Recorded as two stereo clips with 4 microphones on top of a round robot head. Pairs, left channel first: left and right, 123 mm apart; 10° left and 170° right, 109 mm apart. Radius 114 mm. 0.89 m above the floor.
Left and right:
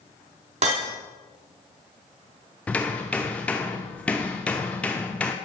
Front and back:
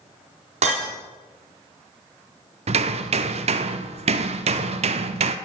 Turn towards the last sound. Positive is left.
turn(degrees=175)